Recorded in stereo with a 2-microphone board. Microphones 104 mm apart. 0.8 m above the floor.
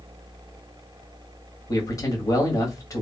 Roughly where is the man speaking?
Left.